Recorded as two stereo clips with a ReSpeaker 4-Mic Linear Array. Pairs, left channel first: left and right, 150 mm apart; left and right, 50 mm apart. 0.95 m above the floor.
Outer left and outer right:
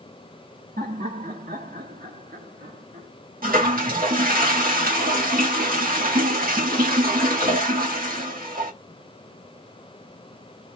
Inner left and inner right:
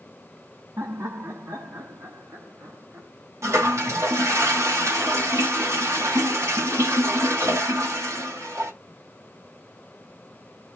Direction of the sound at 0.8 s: 70° right (ahead or behind).